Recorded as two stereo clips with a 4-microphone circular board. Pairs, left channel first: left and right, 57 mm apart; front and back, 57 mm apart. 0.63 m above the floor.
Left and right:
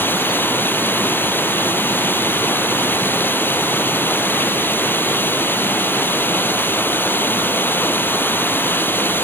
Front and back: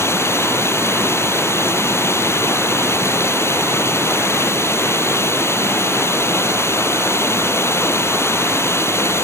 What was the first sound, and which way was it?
Running water, 40° left.